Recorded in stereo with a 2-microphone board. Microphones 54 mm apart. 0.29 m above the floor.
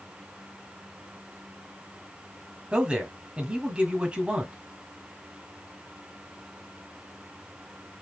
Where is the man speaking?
20° right (ahead or behind), 1.5 m.